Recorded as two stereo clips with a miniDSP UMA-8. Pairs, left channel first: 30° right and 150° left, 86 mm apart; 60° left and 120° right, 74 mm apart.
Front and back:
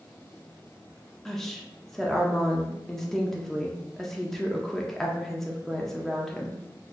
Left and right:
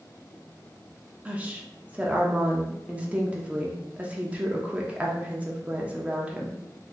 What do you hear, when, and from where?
1.2 s a woman speaking: 100° right, 0.6 m